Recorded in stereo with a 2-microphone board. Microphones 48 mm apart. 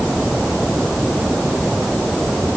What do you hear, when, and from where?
Only background noise.